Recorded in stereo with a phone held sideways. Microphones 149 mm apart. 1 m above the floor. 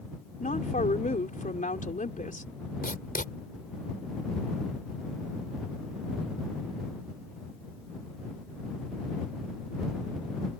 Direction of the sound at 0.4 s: 60° left (ahead or behind).